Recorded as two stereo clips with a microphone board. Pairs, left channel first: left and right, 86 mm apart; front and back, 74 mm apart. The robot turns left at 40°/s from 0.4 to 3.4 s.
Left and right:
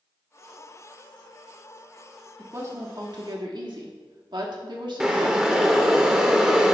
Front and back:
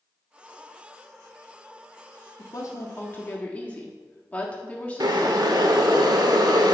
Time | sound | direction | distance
2.4 | a woman speaking | 30° right | 1.4 m
5.0 | boiling | 170° right | 0.8 m